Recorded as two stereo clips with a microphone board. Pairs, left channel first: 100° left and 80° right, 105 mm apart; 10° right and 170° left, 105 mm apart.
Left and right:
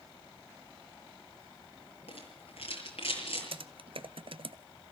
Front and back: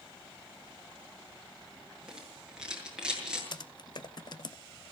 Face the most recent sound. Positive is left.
turn(degrees=-50)